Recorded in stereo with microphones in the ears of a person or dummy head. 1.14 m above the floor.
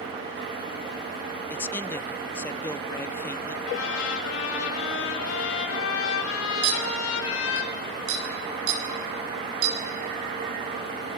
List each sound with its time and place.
1.5 s a man speaking: 10° left (ahead or behind), 0.8 m
3.6 s a trumpet: 75° left (ahead or behind), 7.5 m
6.6 s a clink: 85° right, 5 m